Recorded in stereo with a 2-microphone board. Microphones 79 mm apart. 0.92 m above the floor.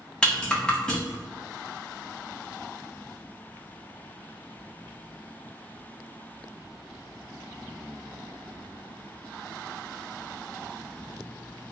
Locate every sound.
0.2 s a rattle: 10° left (ahead or behind), 1.0 m